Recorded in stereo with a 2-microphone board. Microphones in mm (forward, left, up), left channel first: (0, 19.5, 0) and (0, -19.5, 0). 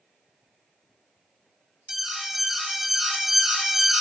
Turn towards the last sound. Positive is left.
turn(degrees=-5)  # may be behind; listen again after turning